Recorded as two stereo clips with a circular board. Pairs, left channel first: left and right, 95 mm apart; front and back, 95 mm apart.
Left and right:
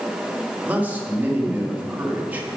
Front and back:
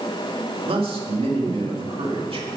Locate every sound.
0.7 s a man speaking: 165° right, 1.7 m